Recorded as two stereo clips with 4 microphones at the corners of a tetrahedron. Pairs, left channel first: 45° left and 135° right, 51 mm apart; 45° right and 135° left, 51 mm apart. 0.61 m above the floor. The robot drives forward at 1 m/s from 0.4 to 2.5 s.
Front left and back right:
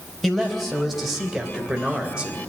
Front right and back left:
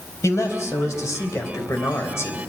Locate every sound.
0.2 s a man speaking: 40° right, 3.5 m; by 2.4 s 75° right, 2.5 m